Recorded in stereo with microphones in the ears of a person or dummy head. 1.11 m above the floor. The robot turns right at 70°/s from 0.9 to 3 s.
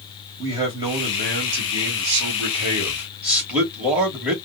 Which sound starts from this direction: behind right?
A man speaking, at 0.4 s.